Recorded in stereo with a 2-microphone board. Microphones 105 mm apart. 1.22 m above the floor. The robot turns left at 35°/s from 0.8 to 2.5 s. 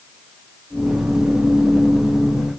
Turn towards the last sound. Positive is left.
No sound to turn to.